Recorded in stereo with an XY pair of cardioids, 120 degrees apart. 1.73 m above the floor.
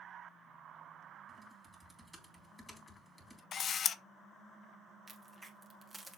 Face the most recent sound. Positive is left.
turn(degrees=-10)